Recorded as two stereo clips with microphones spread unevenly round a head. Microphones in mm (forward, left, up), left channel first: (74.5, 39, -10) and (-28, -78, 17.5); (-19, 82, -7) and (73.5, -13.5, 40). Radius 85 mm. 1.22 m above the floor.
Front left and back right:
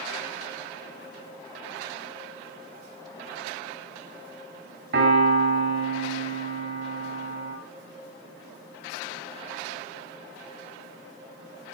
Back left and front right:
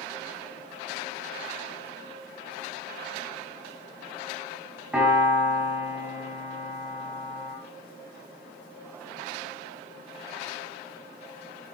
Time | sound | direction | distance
4.9 | a piano | 125° right | 3 m